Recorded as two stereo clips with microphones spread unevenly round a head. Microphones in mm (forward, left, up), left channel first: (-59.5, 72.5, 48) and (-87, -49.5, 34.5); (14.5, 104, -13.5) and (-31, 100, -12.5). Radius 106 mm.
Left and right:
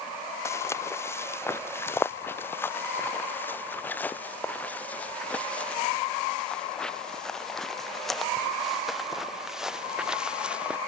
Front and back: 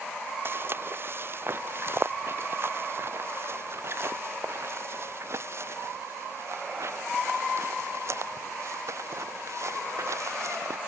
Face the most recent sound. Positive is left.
turn(degrees=175)